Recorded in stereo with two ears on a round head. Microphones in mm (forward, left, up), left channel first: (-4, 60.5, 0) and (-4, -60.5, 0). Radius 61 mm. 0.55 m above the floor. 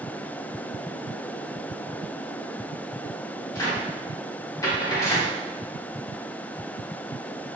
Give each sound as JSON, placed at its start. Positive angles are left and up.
{"t": 3.5, "sound": "a cupboard door", "side_deg": 25, "distance_m": 1.6}